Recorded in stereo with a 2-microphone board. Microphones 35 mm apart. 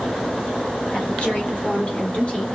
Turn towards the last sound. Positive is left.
turn(degrees=40)  # may be behind; listen again after turning